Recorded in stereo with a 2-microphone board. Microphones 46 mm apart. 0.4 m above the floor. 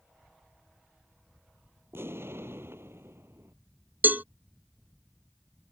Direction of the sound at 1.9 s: 60° right (ahead or behind).